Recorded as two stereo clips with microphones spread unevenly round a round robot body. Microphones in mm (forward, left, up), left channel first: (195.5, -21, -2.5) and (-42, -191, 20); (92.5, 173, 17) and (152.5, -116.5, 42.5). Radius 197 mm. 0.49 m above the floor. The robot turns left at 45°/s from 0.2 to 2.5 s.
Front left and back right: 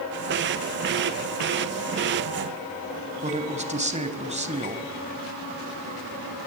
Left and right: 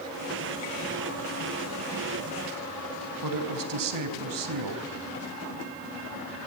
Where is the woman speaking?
75° right, 4 m.